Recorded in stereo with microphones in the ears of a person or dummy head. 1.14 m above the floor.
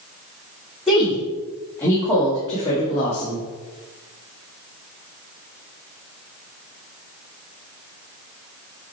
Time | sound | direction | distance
0.9 | a woman speaking | 5° left (ahead or behind) | 3 m